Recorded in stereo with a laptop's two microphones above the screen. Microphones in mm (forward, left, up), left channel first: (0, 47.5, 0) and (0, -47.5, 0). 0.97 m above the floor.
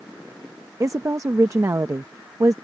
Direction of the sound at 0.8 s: 35° right (ahead or behind).